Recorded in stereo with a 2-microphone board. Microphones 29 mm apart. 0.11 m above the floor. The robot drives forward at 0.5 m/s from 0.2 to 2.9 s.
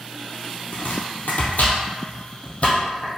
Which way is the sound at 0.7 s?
60° left (ahead or behind).